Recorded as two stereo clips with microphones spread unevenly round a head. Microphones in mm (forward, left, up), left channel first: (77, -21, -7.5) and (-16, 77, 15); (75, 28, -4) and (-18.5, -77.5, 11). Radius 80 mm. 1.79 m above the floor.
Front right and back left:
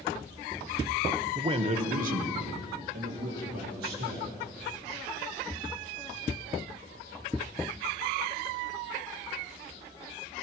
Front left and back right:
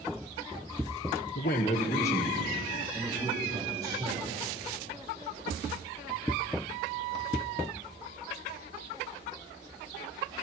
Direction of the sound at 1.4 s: 80° left.